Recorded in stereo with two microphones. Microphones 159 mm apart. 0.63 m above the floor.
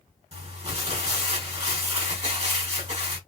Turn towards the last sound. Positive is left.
turn(degrees=-40)  # may be behind; listen again after turning